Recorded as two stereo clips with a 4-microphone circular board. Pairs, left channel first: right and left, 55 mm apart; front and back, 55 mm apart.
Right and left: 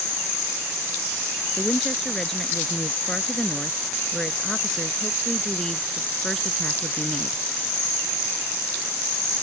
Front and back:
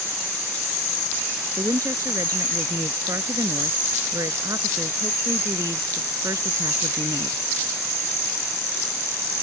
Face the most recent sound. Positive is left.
turn(degrees=-165)